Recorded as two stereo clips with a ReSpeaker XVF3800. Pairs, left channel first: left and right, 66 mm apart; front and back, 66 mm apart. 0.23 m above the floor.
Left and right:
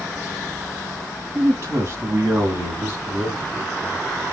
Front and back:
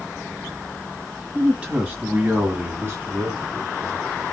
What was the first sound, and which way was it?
A man speaking, 110° right.